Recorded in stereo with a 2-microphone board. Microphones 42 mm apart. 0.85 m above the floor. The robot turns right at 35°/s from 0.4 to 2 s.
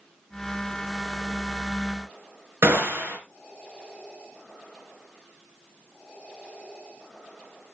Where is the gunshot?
80° right, 3 m.